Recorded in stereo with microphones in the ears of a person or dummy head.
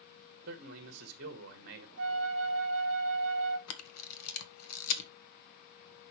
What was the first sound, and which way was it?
A man speaking, 60° right (ahead or behind).